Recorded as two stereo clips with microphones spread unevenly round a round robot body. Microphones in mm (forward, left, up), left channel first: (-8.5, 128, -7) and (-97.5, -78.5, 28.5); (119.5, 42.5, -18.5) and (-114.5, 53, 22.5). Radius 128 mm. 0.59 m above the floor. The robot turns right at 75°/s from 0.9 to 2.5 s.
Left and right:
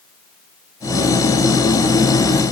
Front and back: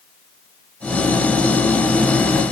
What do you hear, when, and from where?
Only background noise.